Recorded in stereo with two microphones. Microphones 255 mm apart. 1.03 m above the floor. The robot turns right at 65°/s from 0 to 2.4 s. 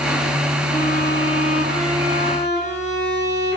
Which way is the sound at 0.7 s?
25° left.